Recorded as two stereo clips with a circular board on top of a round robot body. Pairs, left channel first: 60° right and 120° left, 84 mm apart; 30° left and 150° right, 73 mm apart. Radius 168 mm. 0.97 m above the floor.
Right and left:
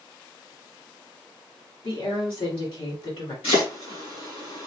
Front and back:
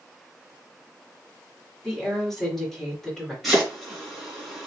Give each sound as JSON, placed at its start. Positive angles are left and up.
{"t": 1.8, "sound": "a woman speaking", "azimuth_deg": -55, "distance_m": 2.5}
{"t": 3.4, "sound": "chopping", "azimuth_deg": -60, "distance_m": 2.5}